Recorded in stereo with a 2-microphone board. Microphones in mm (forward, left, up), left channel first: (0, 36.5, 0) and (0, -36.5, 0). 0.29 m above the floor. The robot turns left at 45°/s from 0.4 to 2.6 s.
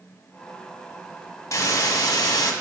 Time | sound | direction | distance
1.5 | a hiss | 125° left | 1.1 m